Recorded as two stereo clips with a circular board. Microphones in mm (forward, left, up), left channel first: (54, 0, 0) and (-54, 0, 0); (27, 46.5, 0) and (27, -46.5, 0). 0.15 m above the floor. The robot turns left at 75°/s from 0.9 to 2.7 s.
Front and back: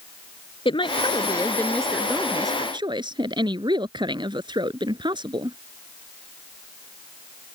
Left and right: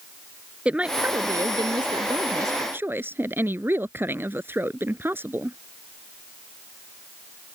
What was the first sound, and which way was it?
A woman speaking, 15° right.